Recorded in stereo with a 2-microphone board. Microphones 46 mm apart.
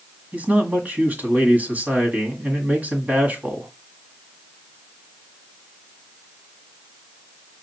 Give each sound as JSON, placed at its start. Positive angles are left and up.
{"t": 0.3, "sound": "a man speaking", "side_deg": -35, "distance_m": 1.5}